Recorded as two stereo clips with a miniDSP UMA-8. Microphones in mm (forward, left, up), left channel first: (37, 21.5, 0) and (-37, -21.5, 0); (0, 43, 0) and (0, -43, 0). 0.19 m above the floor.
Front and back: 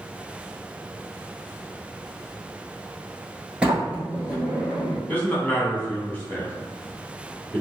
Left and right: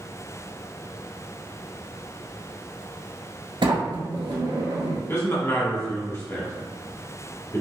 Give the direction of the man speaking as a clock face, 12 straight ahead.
9 o'clock.